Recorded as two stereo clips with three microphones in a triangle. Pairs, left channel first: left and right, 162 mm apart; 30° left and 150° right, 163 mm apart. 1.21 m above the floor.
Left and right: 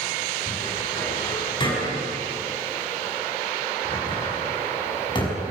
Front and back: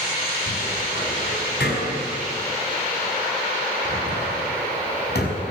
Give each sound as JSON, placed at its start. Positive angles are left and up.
{"t": 0.5, "sound": "a cupboard door", "azimuth_deg": 30, "distance_m": 5.5}